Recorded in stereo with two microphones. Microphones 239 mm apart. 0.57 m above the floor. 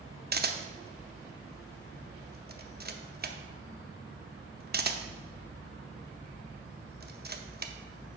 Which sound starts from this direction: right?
A camera shutter, at 0.3 s.